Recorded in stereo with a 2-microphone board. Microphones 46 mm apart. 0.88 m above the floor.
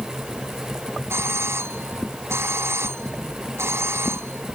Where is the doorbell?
65° right (ahead or behind).